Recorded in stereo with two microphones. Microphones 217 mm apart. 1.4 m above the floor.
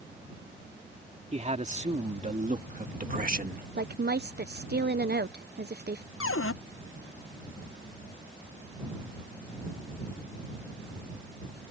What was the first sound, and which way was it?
A man speaking, 30° right (ahead or behind).